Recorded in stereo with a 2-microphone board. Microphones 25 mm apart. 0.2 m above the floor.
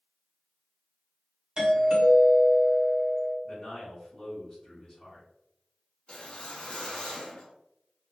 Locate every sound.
1.6 s a doorbell: 30° right (ahead or behind), 1.5 m
3.4 s a man speaking: 20° left (ahead or behind), 1.7 m
6.1 s a whoosh: 40° left (ahead or behind), 0.9 m